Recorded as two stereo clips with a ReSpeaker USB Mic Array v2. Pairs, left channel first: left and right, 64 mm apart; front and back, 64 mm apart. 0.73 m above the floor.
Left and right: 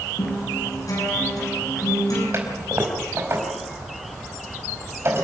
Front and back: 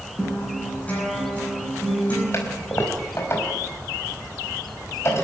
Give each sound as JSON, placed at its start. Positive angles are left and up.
{"t": 0.2, "sound": "a guitar", "azimuth_deg": 70, "distance_m": 10.0}
{"t": 2.3, "sound": "a toilet flushing", "azimuth_deg": -45, "distance_m": 4.5}